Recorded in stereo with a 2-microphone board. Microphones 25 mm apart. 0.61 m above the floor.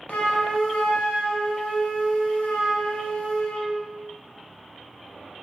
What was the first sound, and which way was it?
A flute, 65° left (ahead or behind).